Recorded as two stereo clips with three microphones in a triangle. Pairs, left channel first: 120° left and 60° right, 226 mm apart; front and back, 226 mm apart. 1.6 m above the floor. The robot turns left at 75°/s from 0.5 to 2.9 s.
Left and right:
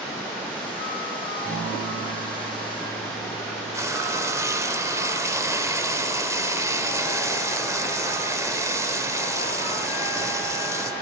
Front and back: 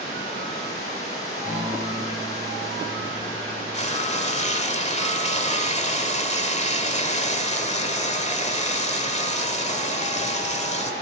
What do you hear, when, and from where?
1.4 s a guitar: 100° left, 8 m; by 3.9 s 10° right, 8 m
3.7 s frying: 5° left, 1.4 m